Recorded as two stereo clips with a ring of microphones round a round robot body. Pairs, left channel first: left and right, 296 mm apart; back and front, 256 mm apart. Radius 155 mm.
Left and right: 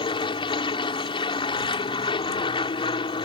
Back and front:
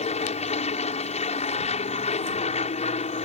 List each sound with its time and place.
0.0 s an aircraft: 145° left